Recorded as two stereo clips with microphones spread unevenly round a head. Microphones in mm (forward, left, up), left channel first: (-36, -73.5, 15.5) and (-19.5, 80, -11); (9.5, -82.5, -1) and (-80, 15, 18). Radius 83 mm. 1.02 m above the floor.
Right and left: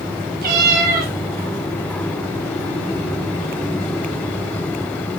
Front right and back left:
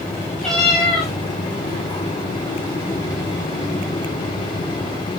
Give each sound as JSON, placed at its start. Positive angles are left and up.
{"t": 0.4, "sound": "a cat meowing", "azimuth_deg": 45, "distance_m": 3.0}